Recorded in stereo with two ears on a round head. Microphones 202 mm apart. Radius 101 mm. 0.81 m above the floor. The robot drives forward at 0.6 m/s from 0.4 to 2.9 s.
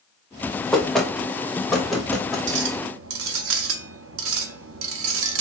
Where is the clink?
55° right (ahead or behind), 0.9 m; by 5.4 s 65° right (ahead or behind), 0.8 m.